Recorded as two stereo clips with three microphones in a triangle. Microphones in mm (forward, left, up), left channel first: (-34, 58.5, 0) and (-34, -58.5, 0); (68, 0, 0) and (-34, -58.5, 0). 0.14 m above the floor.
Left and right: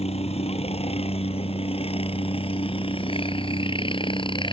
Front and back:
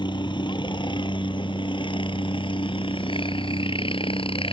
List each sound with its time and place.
0.0 s a helicopter: 75° left; by 4.5 s 55° left